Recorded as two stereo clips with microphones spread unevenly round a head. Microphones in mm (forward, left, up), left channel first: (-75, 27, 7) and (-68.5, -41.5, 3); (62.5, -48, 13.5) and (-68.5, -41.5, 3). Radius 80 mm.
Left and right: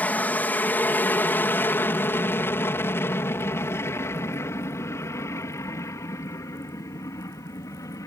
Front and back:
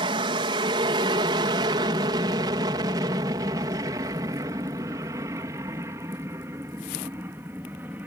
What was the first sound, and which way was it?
An aircraft, 145° left.